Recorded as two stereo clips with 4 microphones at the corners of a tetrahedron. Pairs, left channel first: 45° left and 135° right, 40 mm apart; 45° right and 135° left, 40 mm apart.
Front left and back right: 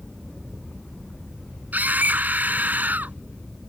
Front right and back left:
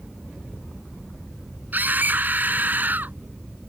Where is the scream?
175° left.